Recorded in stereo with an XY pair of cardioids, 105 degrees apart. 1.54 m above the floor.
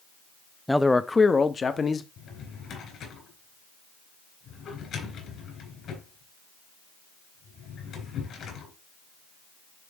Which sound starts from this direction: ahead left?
A drawer, at 2.2 s.